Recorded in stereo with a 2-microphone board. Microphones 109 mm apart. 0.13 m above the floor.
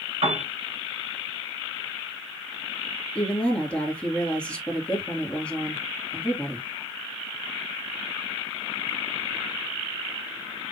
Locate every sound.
0.2 s a piano: 70° right (ahead or behind), 4 m
3.1 s a woman speaking: 10° left (ahead or behind), 2.5 m